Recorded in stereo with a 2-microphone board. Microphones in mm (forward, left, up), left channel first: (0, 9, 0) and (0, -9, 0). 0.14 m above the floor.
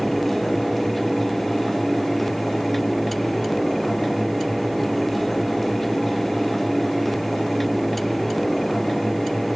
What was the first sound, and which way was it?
Only background noise.